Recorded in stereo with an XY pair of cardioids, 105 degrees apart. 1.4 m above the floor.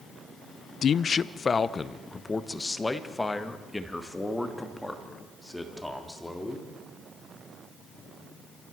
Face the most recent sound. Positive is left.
turn(degrees=10)